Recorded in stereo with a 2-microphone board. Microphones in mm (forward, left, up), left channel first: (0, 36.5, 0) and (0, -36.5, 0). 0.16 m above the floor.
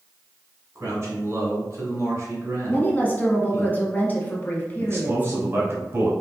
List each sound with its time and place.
0.8 s a man speaking: 40° right (ahead or behind), 1.9 m
2.7 s a woman speaking: 25° left (ahead or behind), 1.2 m
4.8 s a man speaking: 30° right (ahead or behind), 1.4 m